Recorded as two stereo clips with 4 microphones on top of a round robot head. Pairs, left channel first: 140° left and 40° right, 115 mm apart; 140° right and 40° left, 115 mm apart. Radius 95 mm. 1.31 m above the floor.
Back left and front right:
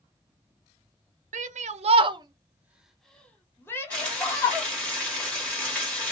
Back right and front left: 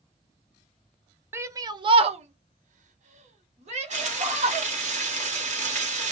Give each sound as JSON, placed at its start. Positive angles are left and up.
{"t": 1.3, "sound": "a shout", "azimuth_deg": -30, "distance_m": 0.7}
{"t": 3.9, "sound": "frying", "azimuth_deg": 55, "distance_m": 1.2}